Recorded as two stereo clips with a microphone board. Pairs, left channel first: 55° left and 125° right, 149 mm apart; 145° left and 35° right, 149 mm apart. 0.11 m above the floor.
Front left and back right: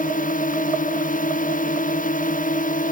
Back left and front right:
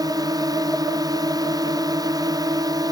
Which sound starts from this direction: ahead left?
A drone, at 0.0 s.